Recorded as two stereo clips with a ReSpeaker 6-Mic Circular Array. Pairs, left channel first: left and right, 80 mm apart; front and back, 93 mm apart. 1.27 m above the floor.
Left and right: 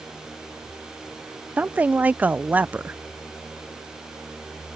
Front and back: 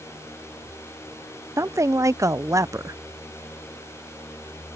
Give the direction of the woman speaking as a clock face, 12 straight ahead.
5 o'clock.